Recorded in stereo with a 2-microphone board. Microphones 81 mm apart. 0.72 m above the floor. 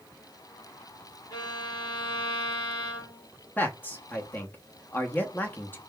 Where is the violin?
50° left (ahead or behind), 1.9 m.